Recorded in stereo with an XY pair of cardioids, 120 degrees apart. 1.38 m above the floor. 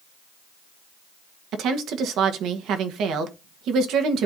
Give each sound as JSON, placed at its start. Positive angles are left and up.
{"t": 1.5, "sound": "a woman speaking", "azimuth_deg": -70, "distance_m": 1.4}